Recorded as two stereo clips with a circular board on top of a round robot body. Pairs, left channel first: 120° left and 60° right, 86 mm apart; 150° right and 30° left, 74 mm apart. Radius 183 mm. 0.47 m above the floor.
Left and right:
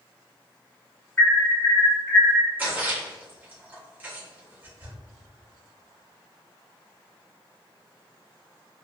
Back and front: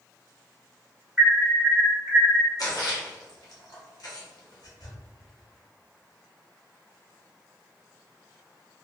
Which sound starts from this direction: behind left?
An alarm, at 1.2 s.